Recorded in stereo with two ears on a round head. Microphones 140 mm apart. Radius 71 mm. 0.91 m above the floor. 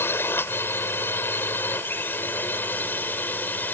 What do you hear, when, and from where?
0.0 s a drone: 15° left (ahead or behind); by 3.7 s 10° left (ahead or behind)